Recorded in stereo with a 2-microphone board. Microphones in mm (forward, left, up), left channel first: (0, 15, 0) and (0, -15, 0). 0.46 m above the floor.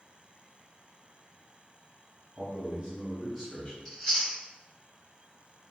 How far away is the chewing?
About 1.9 m.